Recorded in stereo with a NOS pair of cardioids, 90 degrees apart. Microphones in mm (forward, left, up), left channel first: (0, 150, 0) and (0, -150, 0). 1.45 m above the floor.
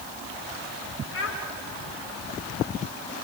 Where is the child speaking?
50° left, 4 m.